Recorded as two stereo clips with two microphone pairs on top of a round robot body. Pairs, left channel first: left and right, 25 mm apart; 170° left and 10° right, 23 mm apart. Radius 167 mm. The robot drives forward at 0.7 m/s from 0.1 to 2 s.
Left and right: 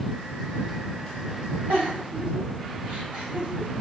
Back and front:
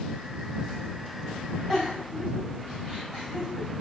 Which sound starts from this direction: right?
A giggle, at 1.7 s.